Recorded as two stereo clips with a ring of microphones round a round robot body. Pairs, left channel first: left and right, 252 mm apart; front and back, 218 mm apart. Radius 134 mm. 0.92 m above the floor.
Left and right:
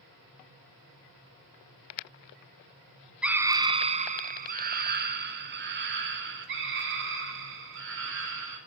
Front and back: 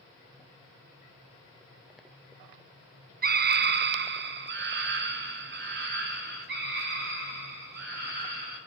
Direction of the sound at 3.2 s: 175° right.